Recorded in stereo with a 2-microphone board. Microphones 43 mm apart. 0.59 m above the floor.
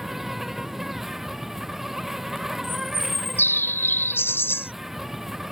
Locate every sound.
0.0 s an insect: 10° right (ahead or behind)
2.6 s a bird: 60° left (ahead or behind)